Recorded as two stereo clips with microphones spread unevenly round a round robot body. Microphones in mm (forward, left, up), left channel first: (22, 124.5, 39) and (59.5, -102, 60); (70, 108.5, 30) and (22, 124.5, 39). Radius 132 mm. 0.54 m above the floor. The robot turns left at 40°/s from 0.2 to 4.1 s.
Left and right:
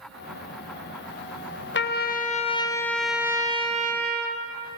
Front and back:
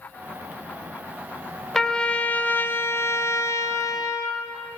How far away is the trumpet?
About 1.9 m.